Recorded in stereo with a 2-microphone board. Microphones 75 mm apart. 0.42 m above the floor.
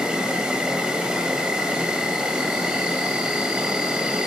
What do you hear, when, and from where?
0.0 s an insect: 10° right (ahead or behind), 2 m